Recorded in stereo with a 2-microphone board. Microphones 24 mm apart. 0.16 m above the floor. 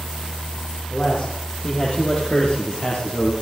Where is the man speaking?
15° left (ahead or behind), 6 m; by 3.3 s 20° left (ahead or behind), 3.5 m.